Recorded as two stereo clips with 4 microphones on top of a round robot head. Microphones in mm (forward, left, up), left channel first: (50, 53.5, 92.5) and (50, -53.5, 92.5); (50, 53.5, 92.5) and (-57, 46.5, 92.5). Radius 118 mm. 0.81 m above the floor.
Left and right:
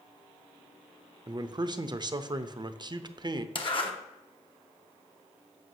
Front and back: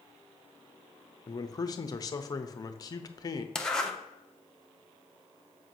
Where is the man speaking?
45° right, 0.7 m.